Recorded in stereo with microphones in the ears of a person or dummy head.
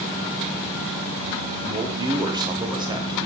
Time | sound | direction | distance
1.6 | a man speaking | 20° right (ahead or behind) | 0.8 m